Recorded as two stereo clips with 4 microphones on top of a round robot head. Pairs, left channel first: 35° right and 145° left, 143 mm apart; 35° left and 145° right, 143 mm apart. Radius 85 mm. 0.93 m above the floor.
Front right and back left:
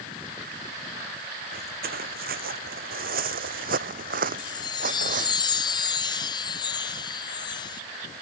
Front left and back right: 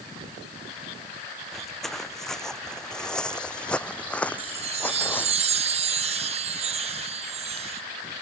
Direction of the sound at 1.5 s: 125° left.